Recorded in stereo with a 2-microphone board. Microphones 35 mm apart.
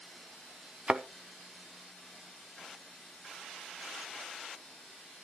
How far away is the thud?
About 0.6 m.